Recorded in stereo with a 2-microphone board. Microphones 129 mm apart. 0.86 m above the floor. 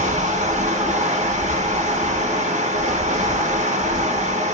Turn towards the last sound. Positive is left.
turn(degrees=-75)  # may be behind; listen again after turning